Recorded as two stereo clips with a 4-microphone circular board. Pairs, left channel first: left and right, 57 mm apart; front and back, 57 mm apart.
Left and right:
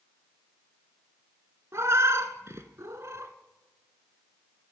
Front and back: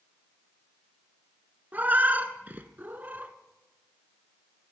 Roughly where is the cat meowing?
Behind right.